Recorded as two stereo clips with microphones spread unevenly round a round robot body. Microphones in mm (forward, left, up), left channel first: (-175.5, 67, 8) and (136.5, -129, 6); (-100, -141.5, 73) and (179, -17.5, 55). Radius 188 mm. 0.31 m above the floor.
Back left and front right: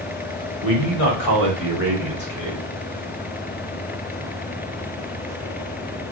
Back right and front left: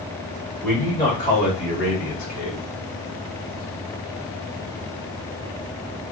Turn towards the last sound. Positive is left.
turn(degrees=-175)